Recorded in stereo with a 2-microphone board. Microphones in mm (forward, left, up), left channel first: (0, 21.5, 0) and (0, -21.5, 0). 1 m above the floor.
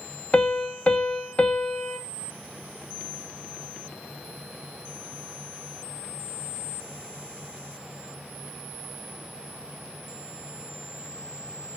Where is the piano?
30° left (ahead or behind), 1.0 m.